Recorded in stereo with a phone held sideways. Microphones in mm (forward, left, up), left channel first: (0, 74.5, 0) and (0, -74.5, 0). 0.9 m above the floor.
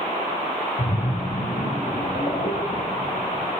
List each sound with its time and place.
0.8 s a splash: 55° left (ahead or behind), 2 m